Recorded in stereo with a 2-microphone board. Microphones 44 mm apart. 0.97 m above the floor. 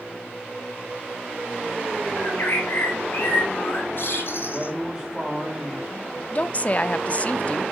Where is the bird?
55° left (ahead or behind), 3.5 m.